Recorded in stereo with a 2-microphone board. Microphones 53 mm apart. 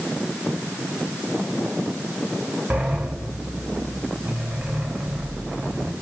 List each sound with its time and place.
2.7 s a sliding door: 25° right (ahead or behind), 3 m